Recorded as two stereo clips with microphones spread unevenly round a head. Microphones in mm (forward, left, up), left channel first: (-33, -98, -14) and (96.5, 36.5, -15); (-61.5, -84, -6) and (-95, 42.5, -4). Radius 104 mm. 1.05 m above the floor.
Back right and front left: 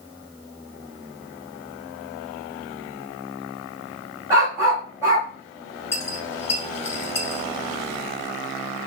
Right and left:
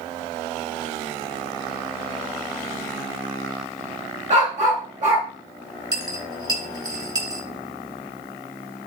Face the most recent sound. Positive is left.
turn(degrees=155)